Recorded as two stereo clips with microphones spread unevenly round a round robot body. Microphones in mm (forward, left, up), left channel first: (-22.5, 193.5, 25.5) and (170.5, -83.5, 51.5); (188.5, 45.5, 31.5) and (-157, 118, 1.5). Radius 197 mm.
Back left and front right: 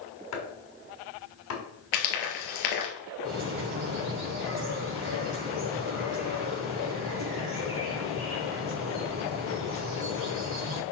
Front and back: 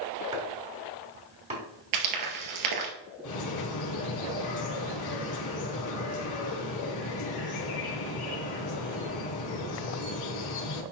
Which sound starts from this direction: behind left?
Frying, at 1.9 s.